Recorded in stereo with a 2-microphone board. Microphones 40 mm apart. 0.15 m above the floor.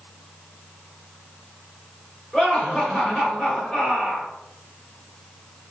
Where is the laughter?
15° left (ahead or behind), 1.9 m.